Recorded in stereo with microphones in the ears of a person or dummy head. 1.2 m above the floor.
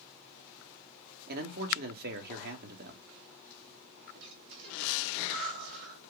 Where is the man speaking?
60° right (ahead or behind), 1.2 m.